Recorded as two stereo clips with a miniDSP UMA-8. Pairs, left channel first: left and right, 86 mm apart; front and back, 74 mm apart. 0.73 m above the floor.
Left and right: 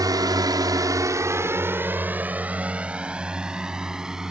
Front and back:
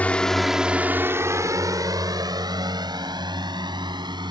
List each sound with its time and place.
0.0 s a drone: 65° right; by 4.3 s 175° right